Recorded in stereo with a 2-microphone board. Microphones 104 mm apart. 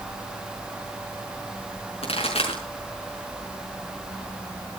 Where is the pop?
75° left (ahead or behind), 5.5 m.